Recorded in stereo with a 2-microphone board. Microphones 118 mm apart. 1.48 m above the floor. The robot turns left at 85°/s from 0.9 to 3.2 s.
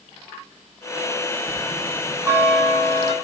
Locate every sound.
1.5 s a bell: 85° right, 7 m; by 3.1 s 130° left, 7 m